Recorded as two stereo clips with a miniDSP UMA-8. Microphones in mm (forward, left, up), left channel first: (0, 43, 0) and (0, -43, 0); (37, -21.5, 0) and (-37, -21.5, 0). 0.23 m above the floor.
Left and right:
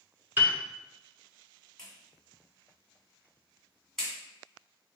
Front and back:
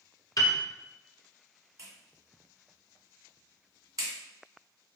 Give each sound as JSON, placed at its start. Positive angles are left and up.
{"t": 0.4, "sound": "a piano", "azimuth_deg": -25, "distance_m": 1.0}
{"t": 1.8, "sound": "a clap", "azimuth_deg": 170, "distance_m": 1.9}